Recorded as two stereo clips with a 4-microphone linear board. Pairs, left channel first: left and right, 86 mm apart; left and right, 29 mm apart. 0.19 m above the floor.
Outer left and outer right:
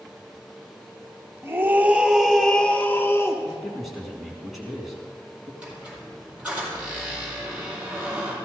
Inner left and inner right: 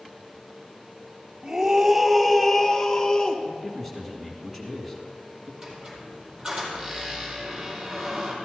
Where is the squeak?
15° right (ahead or behind), 4.5 m.